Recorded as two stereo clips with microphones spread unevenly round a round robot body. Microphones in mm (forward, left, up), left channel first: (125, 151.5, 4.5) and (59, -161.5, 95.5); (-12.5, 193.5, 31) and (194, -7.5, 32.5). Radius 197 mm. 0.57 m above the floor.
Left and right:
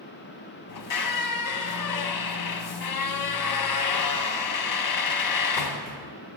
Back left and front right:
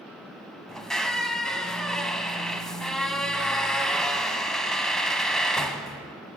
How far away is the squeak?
About 1.0 m.